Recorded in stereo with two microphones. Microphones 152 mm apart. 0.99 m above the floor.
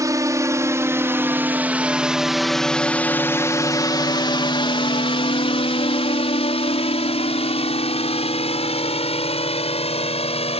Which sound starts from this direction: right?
A drone, at 0.0 s.